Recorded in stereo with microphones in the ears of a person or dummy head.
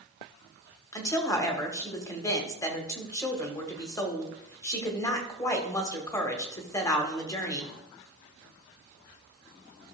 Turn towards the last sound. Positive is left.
turn(degrees=20)  # may be behind; listen again after turning